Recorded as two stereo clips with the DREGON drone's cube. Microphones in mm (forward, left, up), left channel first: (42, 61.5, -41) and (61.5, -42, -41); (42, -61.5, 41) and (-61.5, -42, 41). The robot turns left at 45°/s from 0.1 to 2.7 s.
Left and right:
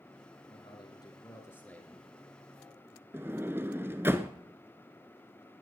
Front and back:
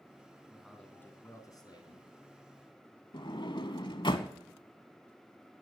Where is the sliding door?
20° right, 1.0 m.